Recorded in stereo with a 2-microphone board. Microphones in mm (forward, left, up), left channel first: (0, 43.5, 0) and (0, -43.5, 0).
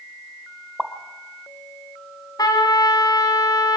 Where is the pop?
Centre (ahead or behind), 1.4 m.